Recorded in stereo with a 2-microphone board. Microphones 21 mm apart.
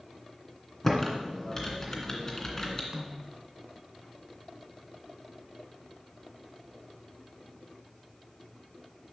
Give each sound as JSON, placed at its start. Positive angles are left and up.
{"t": 0.8, "sound": "typing on a keyboard", "side_deg": 20, "distance_m": 2.0}
{"t": 2.9, "sound": "a snare drum", "side_deg": -30, "distance_m": 1.3}